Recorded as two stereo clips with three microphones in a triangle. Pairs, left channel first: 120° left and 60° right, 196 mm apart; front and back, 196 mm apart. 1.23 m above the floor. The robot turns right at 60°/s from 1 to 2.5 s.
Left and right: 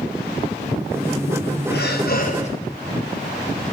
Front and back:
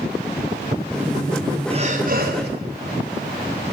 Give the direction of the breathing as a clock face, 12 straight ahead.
8 o'clock.